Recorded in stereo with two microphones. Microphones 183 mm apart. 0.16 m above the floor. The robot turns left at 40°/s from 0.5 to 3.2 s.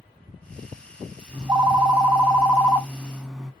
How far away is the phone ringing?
About 0.6 m.